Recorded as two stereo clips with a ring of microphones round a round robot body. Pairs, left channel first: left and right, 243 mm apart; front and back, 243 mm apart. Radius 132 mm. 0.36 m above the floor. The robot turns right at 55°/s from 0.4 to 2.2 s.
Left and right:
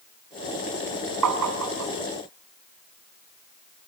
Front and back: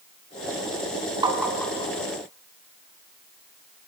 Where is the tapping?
105° right, 3 m; by 1.9 s 65° right, 3 m.